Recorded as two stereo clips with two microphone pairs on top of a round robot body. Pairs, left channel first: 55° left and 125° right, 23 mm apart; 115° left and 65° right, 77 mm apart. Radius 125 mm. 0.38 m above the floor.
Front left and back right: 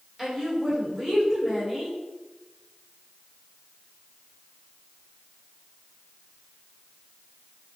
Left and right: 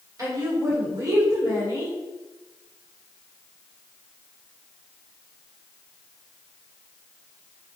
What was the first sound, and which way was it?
A woman speaking, 60° right.